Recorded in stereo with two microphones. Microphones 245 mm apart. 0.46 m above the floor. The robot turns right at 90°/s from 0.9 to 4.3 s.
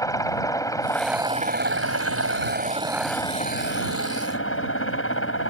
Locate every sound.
0.0 s a helicopter: 165° left; by 5.5 s 110° left